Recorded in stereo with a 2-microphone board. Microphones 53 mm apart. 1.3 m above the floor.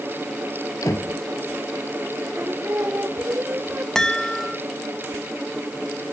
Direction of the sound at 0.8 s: 90° left.